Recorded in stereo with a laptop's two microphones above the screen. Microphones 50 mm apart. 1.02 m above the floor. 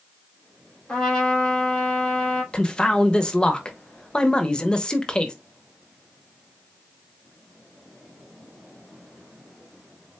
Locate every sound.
0.9 s a trumpet: 20° left (ahead or behind), 2.5 m
2.5 s a man speaking: 15° left (ahead or behind), 0.7 m